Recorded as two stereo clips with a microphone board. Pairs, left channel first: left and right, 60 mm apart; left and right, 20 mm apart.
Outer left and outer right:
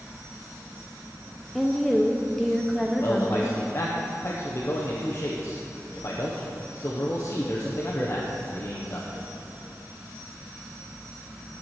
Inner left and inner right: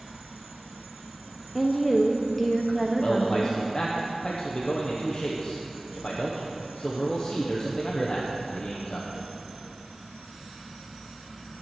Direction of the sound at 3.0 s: 45° left (ahead or behind).